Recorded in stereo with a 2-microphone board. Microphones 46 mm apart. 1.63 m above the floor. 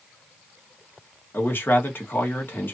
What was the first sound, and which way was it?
A man speaking, 55° left (ahead or behind).